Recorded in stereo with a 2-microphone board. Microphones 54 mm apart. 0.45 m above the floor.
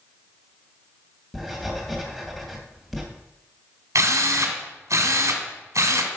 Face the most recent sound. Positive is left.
turn(degrees=-75)  # may be behind; listen again after turning